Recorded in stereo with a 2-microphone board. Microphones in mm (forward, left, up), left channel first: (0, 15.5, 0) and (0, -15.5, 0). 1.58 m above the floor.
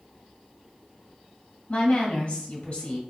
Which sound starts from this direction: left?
A woman speaking, at 1.7 s.